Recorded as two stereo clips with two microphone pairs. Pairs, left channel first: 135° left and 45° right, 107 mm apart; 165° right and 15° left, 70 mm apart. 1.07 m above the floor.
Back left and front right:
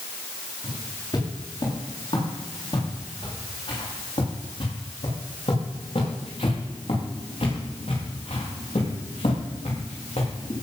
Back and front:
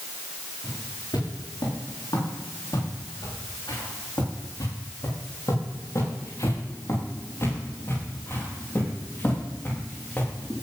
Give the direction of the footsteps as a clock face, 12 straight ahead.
6 o'clock.